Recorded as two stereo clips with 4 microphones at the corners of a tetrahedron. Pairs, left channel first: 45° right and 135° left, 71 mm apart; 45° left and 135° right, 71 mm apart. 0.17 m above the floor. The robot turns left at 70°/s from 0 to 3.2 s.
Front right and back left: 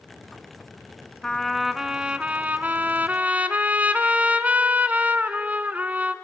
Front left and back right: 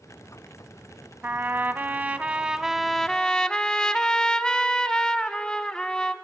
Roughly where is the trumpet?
Behind right.